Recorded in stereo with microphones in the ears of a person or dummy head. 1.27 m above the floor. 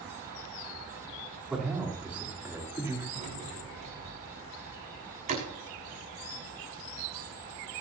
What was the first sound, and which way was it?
A man speaking, 5° right (ahead or behind).